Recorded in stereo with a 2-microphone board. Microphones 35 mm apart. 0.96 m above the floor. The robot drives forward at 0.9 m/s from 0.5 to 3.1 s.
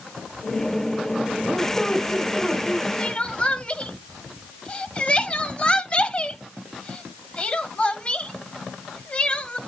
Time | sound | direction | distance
1.4 | a squeak | 10° left (ahead or behind) | 4 m
3.0 | crying | 35° left (ahead or behind) | 1.2 m